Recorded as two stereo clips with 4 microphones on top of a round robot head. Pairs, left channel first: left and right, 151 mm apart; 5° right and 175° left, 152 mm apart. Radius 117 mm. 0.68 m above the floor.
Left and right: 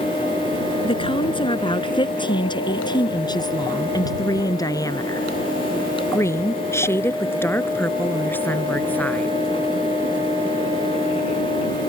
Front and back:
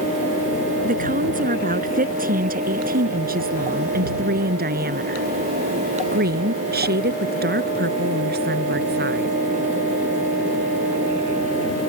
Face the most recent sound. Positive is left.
turn(degrees=170)